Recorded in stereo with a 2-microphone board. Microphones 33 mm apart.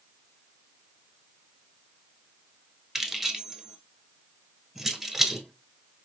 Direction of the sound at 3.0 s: 10° right (ahead or behind).